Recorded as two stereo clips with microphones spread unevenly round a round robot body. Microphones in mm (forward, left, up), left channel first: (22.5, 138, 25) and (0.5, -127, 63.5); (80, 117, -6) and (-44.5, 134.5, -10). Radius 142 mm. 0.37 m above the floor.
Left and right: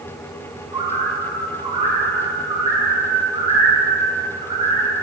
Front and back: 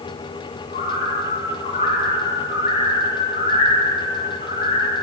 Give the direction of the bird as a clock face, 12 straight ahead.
1 o'clock.